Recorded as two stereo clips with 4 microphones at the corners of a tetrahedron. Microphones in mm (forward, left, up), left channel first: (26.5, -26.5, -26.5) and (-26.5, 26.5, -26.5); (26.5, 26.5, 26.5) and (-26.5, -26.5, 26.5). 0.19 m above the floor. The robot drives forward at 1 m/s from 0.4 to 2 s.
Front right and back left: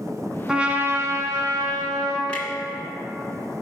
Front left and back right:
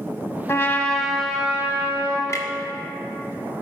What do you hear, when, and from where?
0.5 s a trumpet: 60° left, 0.8 m; by 2.2 s 160° left, 1.5 m
2.3 s a clunk: 25° left, 1.0 m